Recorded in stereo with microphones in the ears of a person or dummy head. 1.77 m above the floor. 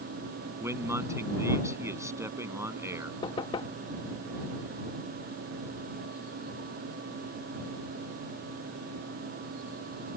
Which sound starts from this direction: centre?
A man speaking, at 0.6 s.